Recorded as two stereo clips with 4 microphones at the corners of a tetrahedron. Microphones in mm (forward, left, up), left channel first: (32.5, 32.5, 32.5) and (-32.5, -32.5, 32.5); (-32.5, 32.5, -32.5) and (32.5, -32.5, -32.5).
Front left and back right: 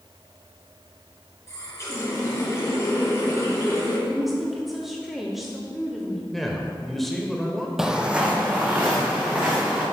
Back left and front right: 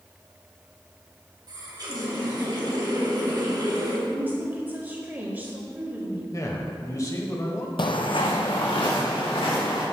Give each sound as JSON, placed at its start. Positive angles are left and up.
{"t": 1.5, "sound": "a running tap", "azimuth_deg": -10, "distance_m": 1.9}
{"t": 4.1, "sound": "a woman speaking", "azimuth_deg": -50, "distance_m": 0.9}
{"t": 6.3, "sound": "a man speaking", "azimuth_deg": 135, "distance_m": 1.1}
{"t": 7.8, "sound": "footsteps", "azimuth_deg": 140, "distance_m": 0.6}